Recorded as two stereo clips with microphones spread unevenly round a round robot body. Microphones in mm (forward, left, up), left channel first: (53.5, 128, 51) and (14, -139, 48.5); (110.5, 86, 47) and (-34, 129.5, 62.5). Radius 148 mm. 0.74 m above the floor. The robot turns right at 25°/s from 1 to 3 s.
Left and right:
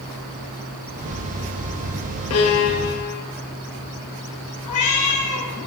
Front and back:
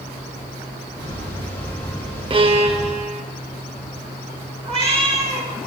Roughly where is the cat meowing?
Left.